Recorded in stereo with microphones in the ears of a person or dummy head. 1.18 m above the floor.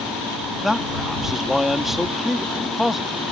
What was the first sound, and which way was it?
A man speaking, centre (ahead or behind).